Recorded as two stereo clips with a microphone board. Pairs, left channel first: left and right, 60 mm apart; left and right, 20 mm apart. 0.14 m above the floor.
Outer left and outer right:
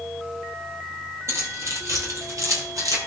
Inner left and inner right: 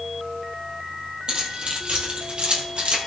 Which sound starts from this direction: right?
Keys jangling, at 1.3 s.